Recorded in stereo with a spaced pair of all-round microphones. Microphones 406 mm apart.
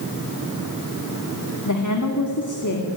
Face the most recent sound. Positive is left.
turn(degrees=45)  # may be behind; listen again after turning